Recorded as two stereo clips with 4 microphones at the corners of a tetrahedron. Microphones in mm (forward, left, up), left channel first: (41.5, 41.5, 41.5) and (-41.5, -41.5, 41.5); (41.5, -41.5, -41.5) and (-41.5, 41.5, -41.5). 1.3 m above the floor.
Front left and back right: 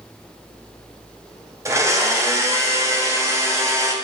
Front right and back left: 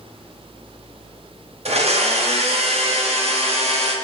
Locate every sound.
1.6 s a blender: 160° left, 0.6 m